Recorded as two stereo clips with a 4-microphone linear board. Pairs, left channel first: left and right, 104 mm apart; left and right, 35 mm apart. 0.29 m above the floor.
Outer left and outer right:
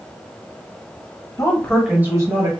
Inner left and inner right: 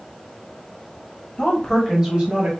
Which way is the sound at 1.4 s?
35° left (ahead or behind).